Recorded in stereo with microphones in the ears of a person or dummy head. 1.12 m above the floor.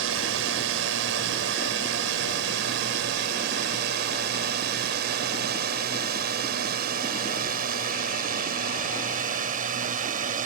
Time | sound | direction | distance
0.0 | a drone | 70° right (ahead or behind) | ?